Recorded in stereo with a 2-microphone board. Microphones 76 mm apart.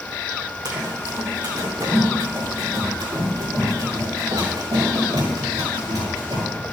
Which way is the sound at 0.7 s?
60° right (ahead or behind).